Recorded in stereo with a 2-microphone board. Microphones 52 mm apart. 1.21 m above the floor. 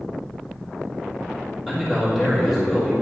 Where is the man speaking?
Centre (ahead or behind), 1.9 m.